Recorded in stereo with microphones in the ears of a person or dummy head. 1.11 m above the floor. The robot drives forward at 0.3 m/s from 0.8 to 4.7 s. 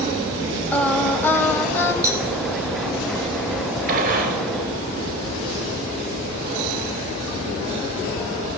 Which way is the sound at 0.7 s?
10° left (ahead or behind).